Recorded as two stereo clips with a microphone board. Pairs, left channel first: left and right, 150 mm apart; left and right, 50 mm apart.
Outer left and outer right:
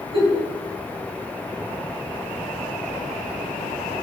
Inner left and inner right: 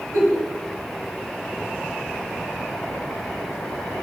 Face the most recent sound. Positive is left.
turn(degrees=-35)  # may be behind; listen again after turning